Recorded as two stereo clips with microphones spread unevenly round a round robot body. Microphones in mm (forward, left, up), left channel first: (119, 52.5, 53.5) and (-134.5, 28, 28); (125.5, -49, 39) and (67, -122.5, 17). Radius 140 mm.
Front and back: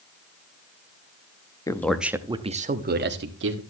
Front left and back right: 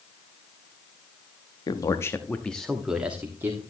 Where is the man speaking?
80° left, 0.8 m; by 3.6 s 175° left, 1.4 m.